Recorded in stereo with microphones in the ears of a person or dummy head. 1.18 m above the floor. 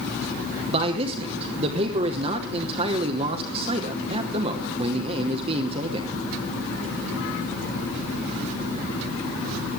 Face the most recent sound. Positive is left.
turn(degrees=-30)  # may be behind; listen again after turning